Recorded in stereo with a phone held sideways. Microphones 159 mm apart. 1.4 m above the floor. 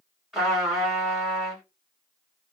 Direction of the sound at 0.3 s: Centre (ahead or behind).